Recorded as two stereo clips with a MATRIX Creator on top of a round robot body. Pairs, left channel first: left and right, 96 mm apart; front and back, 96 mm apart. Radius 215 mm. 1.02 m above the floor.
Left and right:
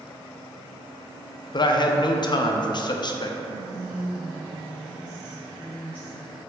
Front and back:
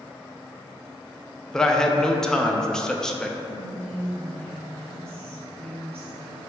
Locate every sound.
1.5 s a man speaking: 80° left, 0.5 m
3.4 s whispering: 165° left, 1.2 m